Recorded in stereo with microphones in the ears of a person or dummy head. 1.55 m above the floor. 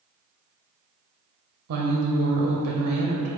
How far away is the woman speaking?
About 0.6 m.